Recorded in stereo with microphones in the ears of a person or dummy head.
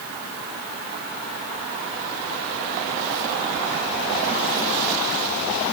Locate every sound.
Only background noise.